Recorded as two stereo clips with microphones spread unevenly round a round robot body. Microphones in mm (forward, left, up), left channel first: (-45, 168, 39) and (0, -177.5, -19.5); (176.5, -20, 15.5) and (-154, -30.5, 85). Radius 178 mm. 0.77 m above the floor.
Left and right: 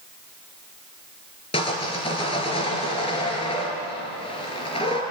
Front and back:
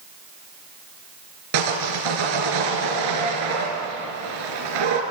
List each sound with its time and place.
1.5 s sawing: 170° left, 4 m